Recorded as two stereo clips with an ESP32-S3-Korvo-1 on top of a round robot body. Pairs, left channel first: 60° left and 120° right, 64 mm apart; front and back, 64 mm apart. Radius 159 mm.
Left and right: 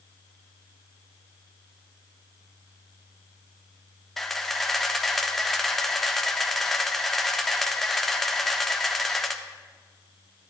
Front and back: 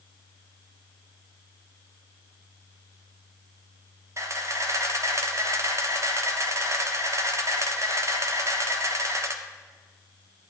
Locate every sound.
4.2 s a camera shutter: 145° left, 0.9 m